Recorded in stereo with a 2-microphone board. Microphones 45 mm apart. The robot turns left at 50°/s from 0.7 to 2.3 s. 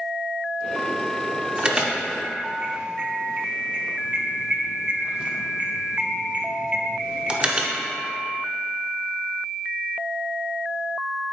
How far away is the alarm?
About 0.7 m.